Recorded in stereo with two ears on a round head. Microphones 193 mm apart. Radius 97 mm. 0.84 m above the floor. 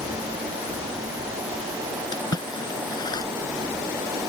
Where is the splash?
20° left (ahead or behind).